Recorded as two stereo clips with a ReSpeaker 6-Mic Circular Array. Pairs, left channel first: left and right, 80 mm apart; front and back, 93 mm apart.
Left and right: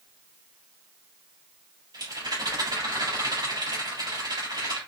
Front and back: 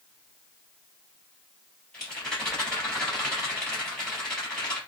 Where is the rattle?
80° right, 2.5 m.